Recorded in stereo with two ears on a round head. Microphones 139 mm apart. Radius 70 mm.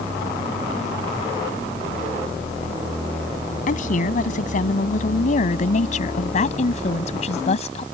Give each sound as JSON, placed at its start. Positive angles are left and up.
{"t": 3.7, "sound": "a woman speaking", "side_deg": 55}